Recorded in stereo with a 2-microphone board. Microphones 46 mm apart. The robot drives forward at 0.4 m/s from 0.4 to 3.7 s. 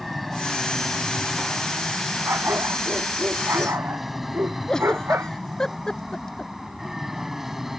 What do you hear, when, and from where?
0.0 s an aircraft: centre (ahead or behind); by 7.8 s 5° right (ahead or behind)
2.2 s a dog barking: 65° right (ahead or behind)
4.7 s a giggle: 15° left (ahead or behind)